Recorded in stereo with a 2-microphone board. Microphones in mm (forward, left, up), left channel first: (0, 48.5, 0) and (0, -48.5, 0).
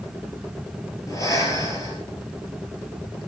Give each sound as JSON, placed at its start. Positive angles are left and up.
{"t": 1.1, "sound": "breathing", "side_deg": 40, "distance_m": 3.5}